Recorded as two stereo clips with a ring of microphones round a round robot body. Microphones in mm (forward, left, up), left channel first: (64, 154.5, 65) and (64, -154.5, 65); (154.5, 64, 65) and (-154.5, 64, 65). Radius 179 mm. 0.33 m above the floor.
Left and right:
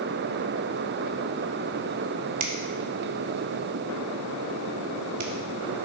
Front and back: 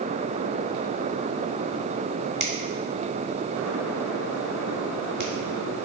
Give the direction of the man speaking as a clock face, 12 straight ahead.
I don't hear a man speaking.